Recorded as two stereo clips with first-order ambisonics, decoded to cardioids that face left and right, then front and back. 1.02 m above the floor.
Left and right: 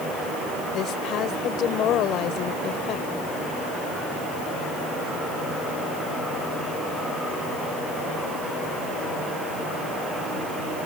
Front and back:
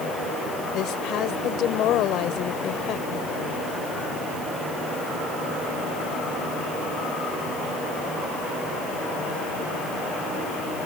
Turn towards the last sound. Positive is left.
turn(degrees=45)